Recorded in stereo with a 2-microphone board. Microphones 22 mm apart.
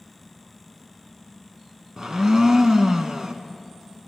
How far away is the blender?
About 0.7 m.